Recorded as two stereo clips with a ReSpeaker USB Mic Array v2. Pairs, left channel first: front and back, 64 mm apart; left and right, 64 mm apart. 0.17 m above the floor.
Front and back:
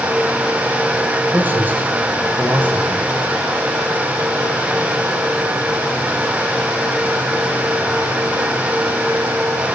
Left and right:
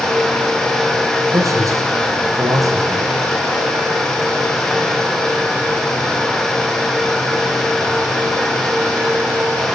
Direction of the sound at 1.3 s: 120° right.